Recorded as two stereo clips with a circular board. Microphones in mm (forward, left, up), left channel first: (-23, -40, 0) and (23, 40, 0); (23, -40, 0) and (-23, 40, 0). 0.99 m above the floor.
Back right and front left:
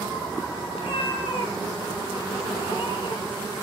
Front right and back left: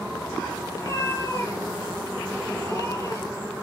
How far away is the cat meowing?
About 8 m.